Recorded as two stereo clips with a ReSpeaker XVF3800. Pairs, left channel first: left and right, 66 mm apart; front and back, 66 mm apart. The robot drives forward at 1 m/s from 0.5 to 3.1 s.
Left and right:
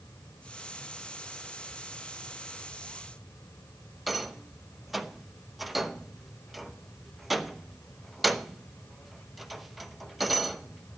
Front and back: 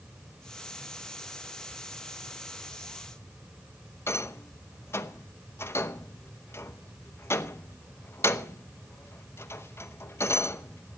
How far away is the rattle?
About 0.7 m.